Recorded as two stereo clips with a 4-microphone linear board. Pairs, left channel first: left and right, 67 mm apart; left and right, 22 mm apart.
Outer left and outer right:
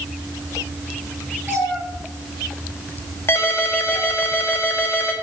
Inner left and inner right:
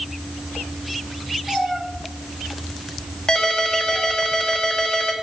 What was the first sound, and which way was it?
A cat meowing, 25° right (ahead or behind).